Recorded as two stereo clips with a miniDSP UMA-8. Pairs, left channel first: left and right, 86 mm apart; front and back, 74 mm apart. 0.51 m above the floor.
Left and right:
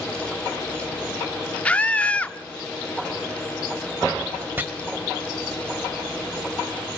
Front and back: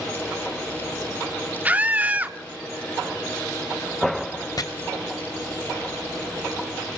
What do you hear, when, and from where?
1.6 s a scream: 145° left, 0.7 m
4.6 s chopping: 25° right, 2.5 m